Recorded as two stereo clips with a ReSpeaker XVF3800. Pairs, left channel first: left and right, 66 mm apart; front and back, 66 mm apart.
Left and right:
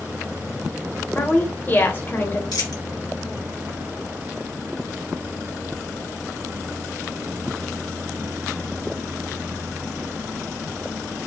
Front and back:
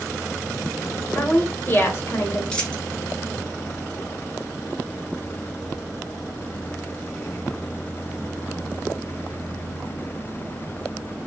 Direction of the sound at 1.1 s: 40° left.